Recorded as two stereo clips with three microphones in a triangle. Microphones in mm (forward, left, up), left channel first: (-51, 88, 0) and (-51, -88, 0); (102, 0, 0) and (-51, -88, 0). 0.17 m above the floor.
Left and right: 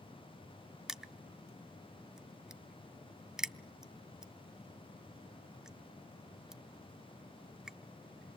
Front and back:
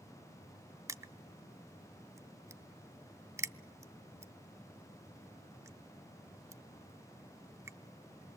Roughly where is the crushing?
Behind.